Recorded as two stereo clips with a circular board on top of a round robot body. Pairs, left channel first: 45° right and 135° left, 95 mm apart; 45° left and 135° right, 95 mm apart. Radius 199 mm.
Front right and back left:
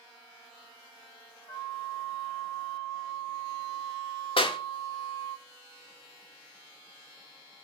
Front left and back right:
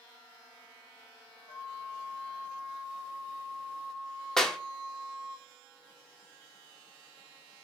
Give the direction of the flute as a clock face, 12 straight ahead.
11 o'clock.